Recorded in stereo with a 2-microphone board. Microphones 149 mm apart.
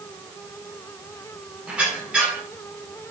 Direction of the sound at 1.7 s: 10° right (ahead or behind).